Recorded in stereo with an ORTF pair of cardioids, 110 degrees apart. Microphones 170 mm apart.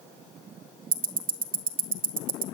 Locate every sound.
0.9 s ticking: 50° right, 0.9 m